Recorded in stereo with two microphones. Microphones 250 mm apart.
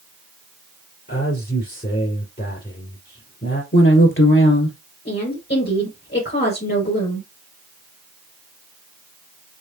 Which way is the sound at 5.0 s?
40° left (ahead or behind).